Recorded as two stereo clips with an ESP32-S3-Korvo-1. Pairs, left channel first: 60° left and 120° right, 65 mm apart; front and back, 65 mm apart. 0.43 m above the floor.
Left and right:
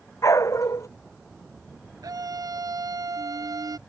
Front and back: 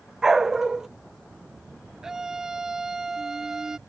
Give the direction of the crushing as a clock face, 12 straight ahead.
I don't hear crushing.